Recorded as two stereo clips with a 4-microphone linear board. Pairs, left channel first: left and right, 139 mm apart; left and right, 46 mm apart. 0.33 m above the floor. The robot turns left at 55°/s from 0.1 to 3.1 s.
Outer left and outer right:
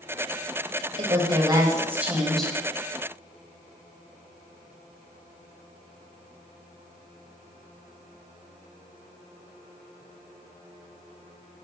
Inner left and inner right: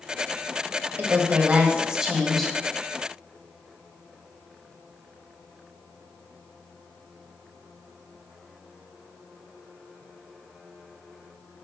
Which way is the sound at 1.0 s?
105° right.